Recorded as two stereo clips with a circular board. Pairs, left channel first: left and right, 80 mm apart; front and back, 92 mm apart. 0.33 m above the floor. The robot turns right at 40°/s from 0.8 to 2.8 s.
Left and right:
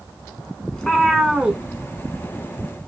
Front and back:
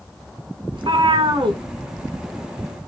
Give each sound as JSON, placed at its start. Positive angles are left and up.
{"t": 0.7, "sound": "a cat meowing", "azimuth_deg": 170, "distance_m": 0.7}